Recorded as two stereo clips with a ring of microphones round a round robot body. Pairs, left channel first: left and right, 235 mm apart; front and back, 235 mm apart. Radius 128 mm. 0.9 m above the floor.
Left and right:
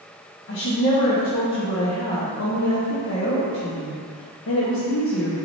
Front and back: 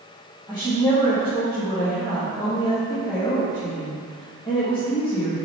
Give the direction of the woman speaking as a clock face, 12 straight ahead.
10 o'clock.